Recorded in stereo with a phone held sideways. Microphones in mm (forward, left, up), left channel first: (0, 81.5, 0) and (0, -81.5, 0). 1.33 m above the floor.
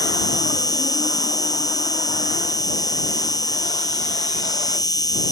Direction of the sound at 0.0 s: 20° left (ahead or behind).